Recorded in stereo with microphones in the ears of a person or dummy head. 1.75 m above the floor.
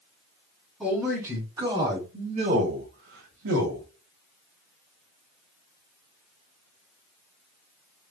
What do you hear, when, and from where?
0.8 s a man speaking: 5° right (ahead or behind), 2 m; by 3.9 s 70° right (ahead or behind), 1.4 m